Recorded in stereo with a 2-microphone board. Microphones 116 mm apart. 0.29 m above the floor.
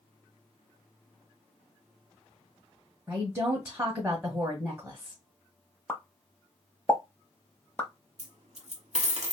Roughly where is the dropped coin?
Right.